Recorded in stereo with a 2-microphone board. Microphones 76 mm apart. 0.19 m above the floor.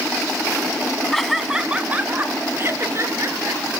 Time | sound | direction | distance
1.1 | laughter | 5° left (ahead or behind) | 1.8 m